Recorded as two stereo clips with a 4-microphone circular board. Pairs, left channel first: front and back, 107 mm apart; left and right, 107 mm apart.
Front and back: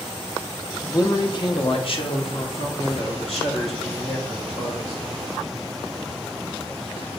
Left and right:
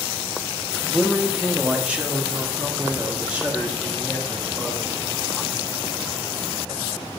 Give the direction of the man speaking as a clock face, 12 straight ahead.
12 o'clock.